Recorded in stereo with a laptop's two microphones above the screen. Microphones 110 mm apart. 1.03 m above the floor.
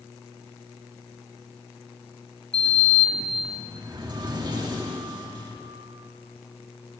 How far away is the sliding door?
About 1.6 m.